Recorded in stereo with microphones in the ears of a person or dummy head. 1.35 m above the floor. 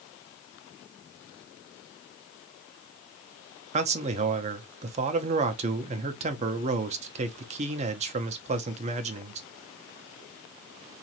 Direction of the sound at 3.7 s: 35° right (ahead or behind).